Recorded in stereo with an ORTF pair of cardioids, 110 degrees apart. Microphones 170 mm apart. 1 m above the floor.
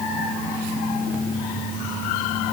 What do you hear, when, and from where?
Only background noise.